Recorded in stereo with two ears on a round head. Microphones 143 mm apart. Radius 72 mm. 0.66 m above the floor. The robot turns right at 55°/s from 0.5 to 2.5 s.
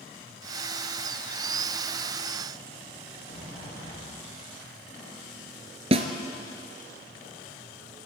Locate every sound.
3.3 s a sliding door: 35° left (ahead or behind), 9.5 m
5.9 s a snare drum: 35° right (ahead or behind), 2 m